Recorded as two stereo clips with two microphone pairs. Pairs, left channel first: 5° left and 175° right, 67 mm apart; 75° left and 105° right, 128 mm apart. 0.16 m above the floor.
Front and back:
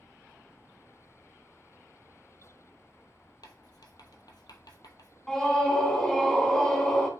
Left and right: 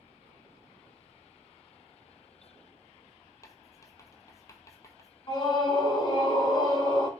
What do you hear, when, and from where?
3.4 s writing: straight ahead, 0.9 m
5.3 s a scream: 80° left, 1.5 m